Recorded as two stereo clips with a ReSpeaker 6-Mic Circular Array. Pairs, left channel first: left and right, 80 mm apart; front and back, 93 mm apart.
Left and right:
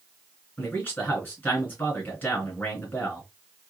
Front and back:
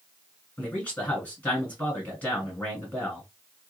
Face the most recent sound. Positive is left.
turn(degrees=55)